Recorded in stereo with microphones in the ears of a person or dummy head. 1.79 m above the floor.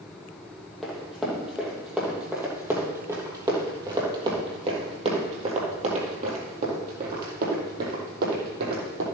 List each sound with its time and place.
0.8 s running footsteps: 5° left (ahead or behind), 3.5 m; by 9.1 s 60° right (ahead or behind), 4 m